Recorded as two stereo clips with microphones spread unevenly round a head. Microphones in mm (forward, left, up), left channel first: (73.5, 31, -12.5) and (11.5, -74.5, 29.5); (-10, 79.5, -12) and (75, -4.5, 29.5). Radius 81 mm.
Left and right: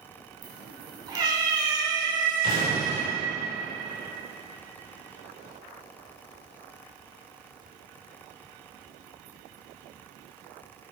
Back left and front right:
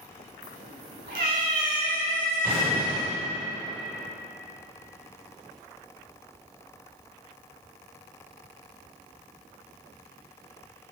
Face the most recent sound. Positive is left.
turn(degrees=-125)